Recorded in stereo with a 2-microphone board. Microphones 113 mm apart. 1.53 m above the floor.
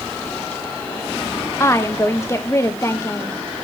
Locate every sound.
1.6 s a woman speaking: 25° left (ahead or behind), 1.1 m